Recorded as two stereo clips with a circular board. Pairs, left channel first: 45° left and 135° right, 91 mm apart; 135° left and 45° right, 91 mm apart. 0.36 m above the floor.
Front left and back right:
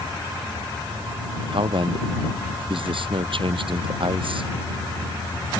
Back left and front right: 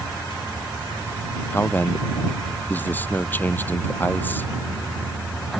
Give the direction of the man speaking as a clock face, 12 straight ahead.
5 o'clock.